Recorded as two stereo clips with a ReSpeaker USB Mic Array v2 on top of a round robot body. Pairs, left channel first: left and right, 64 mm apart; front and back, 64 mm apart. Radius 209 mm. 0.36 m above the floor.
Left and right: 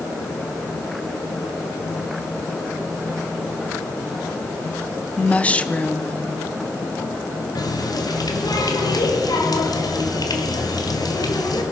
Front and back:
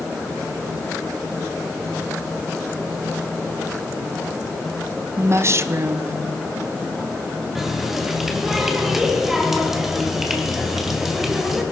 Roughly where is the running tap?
Left.